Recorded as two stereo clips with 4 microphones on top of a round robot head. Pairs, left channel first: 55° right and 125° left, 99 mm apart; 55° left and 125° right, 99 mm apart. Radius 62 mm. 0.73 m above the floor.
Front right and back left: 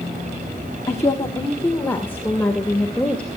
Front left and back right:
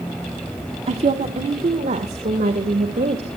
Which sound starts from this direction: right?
A woman speaking, at 0.9 s.